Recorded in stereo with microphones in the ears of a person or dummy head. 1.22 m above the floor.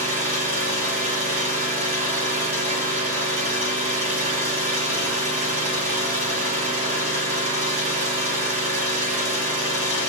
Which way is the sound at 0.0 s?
40° right (ahead or behind).